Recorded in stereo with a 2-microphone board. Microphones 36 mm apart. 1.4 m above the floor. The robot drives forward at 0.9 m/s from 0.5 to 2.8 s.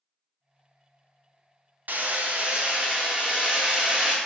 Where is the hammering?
55° right (ahead or behind), 0.8 m; by 4.2 s 30° right (ahead or behind), 1.3 m.